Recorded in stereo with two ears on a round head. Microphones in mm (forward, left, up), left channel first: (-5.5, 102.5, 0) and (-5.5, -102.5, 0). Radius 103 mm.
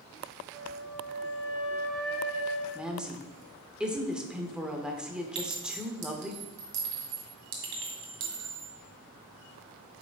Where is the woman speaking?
5° right (ahead or behind), 0.9 m.